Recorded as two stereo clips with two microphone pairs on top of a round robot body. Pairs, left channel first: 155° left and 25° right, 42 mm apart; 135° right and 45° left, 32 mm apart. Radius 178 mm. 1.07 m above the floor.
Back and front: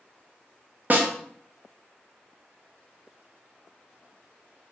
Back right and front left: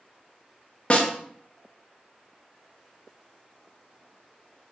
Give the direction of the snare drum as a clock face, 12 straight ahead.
3 o'clock.